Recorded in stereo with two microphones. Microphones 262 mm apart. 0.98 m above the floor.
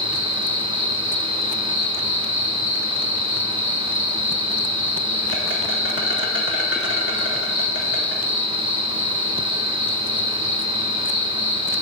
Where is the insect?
50° left (ahead or behind), 1.7 m.